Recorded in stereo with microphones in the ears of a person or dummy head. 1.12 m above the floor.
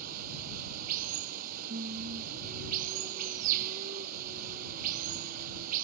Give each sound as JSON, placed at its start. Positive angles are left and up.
{"t": 0.0, "sound": "running water", "side_deg": -45}
{"t": 1.7, "sound": "singing", "side_deg": -45}